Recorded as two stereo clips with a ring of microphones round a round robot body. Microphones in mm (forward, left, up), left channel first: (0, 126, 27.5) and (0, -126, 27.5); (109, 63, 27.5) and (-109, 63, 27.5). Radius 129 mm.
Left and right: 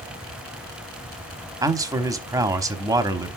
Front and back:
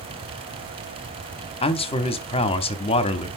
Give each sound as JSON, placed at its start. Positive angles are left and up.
{"t": 1.6, "sound": "a man speaking", "azimuth_deg": -25, "distance_m": 0.9}